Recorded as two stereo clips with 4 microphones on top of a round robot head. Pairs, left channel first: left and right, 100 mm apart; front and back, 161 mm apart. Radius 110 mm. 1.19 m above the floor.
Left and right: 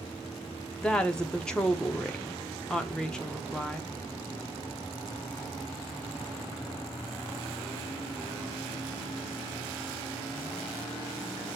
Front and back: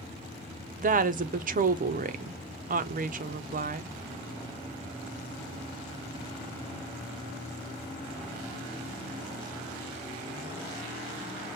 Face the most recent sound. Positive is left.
turn(degrees=170)